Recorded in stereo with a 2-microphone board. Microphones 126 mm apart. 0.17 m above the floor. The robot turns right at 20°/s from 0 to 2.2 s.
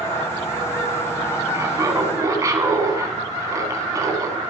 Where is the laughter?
25° right (ahead or behind), 1.3 m.